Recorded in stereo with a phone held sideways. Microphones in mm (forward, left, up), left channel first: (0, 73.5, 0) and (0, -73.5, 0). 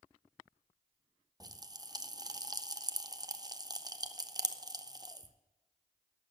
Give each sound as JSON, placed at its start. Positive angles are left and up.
{"t": 1.4, "sound": "a pop", "side_deg": -25, "distance_m": 0.6}